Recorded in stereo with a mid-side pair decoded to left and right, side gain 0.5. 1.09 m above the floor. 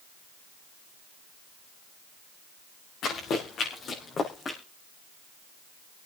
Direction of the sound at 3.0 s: 60° left.